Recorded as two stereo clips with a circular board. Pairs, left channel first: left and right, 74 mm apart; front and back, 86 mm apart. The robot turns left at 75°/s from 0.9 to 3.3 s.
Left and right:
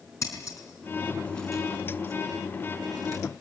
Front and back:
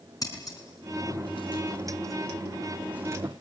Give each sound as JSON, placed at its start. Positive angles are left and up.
{"t": 0.2, "sound": "scissors", "azimuth_deg": 45, "distance_m": 5.0}